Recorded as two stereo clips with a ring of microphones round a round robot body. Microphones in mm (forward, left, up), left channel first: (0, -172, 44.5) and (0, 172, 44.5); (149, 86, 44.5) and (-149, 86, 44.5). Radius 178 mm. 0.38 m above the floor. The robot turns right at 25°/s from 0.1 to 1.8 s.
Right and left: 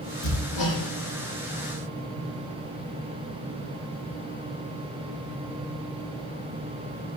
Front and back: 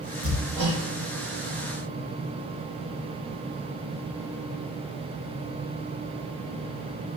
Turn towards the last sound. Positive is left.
turn(degrees=-115)